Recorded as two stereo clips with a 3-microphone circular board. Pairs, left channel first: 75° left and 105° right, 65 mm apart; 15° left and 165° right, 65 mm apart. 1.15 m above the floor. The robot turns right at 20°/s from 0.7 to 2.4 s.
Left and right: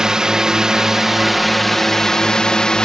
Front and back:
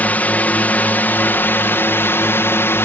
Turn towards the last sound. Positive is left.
turn(degrees=0)